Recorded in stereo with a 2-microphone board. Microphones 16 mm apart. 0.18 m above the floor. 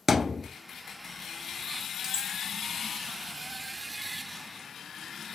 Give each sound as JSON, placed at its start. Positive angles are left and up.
{"t": 0.1, "sound": "a thud", "side_deg": -10, "distance_m": 1.3}
{"t": 2.0, "sound": "cutlery clinking", "side_deg": -40, "distance_m": 0.9}